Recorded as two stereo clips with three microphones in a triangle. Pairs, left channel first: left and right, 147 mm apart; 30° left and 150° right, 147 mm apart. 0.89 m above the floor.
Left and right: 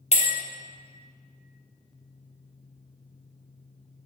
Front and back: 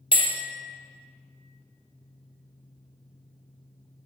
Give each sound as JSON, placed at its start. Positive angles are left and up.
{"t": 0.1, "sound": "a bell", "azimuth_deg": 70, "distance_m": 1.2}